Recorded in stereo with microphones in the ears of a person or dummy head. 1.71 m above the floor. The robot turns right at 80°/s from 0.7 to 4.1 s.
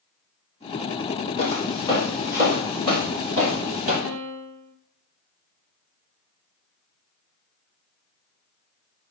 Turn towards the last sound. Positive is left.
turn(degrees=-70)  # may be behind; listen again after turning